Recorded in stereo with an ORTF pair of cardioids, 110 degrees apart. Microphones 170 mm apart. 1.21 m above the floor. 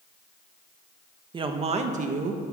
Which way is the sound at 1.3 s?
30° right.